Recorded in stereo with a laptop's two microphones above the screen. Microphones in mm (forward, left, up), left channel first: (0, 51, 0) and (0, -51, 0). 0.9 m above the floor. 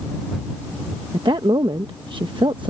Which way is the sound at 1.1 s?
50° right (ahead or behind).